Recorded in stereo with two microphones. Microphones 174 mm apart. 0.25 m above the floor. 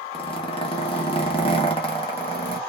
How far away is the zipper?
About 0.7 m.